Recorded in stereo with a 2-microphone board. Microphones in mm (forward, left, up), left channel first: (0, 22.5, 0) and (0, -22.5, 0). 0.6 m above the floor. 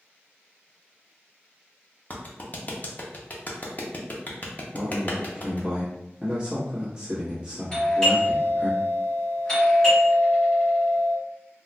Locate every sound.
2.1 s a clap: 40° left (ahead or behind), 0.6 m
4.7 s a man speaking: 20° right (ahead or behind), 1.1 m
7.7 s a doorbell: 25° left (ahead or behind), 1.8 m